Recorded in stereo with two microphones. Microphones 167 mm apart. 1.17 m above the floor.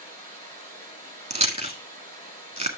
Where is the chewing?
40° right (ahead or behind), 1.5 m.